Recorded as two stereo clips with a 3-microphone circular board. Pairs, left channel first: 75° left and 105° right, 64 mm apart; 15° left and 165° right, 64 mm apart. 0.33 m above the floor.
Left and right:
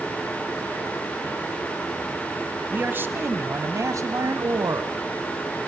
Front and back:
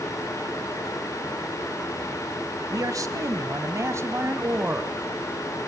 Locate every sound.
2.7 s a man speaking: 165° right, 1.7 m; by 4.9 s 105° right, 1.9 m